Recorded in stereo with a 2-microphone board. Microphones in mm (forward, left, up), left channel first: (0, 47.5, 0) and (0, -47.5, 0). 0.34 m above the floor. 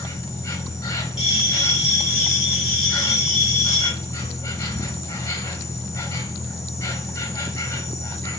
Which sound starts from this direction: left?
An insect, at 0.0 s.